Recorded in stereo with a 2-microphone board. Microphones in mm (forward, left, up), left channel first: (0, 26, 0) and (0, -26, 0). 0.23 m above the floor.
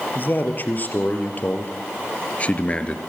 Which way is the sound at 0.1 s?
40° left (ahead or behind).